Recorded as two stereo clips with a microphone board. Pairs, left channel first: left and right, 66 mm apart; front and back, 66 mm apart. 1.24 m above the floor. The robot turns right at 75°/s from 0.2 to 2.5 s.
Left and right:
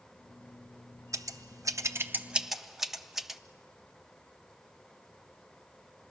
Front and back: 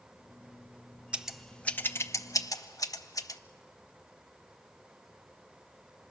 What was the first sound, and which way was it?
Scissors, 110° right.